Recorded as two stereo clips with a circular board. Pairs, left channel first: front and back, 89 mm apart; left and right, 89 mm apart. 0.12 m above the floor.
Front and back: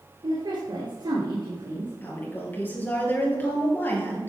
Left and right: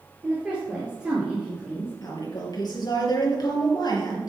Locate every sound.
0.2 s a woman speaking: 165° right, 2 m
2.0 s a woman speaking: 65° left, 2.5 m